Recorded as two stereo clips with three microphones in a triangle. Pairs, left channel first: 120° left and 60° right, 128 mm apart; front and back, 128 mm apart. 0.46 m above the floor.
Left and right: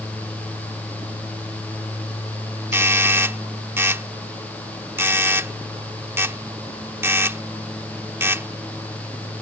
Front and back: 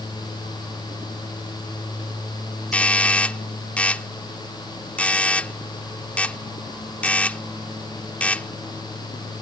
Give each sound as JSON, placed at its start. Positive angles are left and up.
{"t": 2.7, "sound": "a doorbell", "azimuth_deg": -55}